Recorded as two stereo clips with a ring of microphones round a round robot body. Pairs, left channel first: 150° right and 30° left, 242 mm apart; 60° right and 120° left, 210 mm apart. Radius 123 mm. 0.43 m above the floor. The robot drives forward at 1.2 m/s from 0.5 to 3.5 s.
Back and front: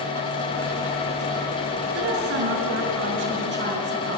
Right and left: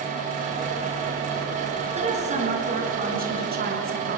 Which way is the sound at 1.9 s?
60° left.